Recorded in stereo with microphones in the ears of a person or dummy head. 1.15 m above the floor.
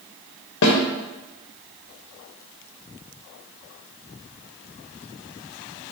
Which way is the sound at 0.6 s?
60° left (ahead or behind).